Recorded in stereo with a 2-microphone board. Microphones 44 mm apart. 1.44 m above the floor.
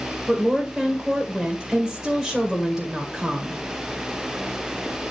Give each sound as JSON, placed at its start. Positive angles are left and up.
{"t": 0.3, "sound": "a woman speaking", "side_deg": 0, "distance_m": 1.8}